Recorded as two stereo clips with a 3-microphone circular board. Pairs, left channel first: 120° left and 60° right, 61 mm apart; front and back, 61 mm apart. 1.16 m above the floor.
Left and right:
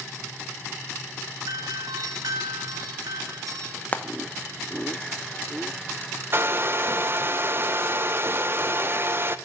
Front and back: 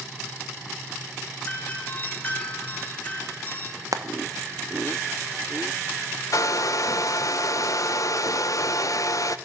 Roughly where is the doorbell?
Ahead right.